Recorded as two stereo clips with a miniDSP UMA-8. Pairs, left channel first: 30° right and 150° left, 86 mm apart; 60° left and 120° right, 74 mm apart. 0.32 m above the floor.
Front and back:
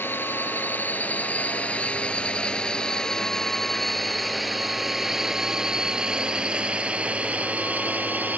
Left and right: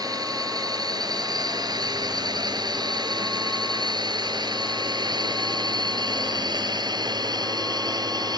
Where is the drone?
95° right; by 8.4 s 140° right.